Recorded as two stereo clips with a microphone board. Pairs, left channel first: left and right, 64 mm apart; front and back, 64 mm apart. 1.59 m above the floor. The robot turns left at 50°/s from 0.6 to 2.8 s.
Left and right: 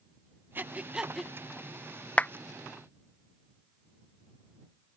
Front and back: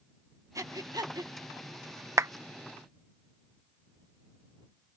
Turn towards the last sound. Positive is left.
turn(degrees=120)